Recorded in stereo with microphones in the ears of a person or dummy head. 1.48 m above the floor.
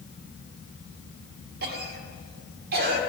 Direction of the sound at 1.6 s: 55° right (ahead or behind).